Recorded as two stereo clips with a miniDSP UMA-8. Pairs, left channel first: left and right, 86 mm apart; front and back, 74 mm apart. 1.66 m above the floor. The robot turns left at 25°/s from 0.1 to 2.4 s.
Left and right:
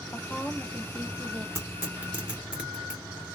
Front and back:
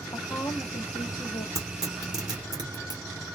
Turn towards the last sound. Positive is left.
turn(degrees=-170)